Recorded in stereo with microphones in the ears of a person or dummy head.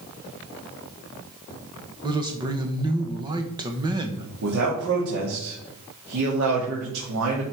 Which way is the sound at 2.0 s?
20° right (ahead or behind).